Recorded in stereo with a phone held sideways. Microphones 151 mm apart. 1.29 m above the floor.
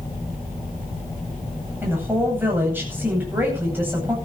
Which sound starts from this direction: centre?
A woman speaking, at 1.8 s.